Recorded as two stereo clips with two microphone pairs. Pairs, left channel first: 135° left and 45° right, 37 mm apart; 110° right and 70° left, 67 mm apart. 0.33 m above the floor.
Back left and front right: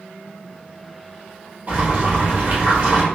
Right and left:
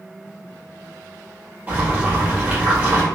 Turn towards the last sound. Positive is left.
turn(degrees=5)